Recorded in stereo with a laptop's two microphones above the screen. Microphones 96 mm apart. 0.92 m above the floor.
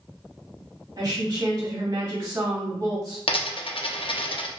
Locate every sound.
1.0 s a woman speaking: 35° right (ahead or behind), 1.6 m
3.3 s a dropped coin: 70° left (ahead or behind), 0.6 m